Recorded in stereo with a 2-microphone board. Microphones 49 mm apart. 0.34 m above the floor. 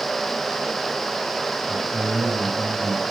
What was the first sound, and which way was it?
A man speaking, 30° right (ahead or behind).